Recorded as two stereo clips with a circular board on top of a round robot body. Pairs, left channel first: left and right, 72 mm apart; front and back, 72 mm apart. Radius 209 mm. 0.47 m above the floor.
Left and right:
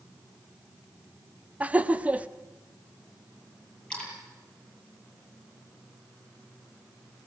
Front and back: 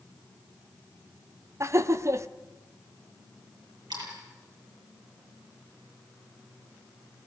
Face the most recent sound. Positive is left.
turn(degrees=170)